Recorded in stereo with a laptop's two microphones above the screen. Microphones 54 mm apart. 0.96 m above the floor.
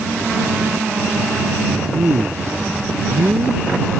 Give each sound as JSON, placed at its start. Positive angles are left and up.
{"t": 1.9, "sound": "a man speaking", "side_deg": -60}